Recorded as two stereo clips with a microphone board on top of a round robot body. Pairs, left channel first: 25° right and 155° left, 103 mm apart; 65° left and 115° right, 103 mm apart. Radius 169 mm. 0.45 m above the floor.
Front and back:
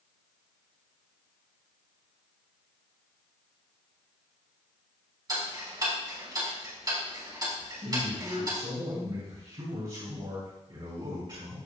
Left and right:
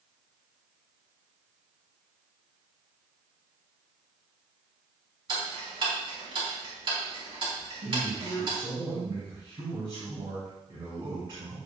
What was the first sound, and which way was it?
Ticking, 150° right.